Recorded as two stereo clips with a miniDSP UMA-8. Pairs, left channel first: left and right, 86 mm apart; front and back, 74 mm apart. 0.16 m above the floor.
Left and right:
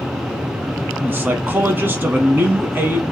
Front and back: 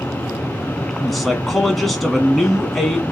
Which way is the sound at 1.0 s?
85° right.